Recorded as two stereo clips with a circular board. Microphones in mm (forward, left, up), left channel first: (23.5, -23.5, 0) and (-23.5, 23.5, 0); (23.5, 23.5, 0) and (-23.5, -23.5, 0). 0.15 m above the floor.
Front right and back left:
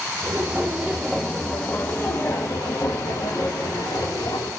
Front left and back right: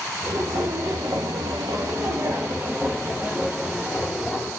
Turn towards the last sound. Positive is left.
turn(degrees=-60)